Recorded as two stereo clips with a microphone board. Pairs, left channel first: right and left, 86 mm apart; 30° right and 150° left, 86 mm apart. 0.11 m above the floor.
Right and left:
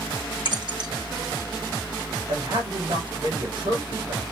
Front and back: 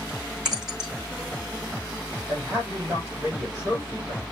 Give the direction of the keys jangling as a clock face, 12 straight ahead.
10 o'clock.